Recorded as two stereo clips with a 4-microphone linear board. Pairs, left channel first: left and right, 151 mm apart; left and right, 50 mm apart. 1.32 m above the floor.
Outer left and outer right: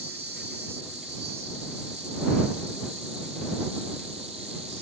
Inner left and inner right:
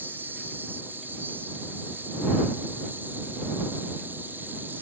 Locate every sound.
0.0 s an insect: 45° right (ahead or behind)